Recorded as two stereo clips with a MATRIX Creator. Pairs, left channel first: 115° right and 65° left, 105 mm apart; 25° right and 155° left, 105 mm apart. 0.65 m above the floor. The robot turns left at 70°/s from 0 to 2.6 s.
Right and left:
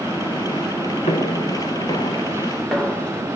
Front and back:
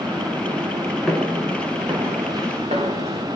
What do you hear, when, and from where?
1.1 s footsteps: 105° right, 4.5 m; by 3.2 s 165° left, 7 m